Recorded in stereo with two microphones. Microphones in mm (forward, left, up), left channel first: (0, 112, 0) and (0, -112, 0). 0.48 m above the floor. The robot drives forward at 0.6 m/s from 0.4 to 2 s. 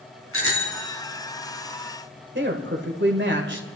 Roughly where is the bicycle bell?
Left.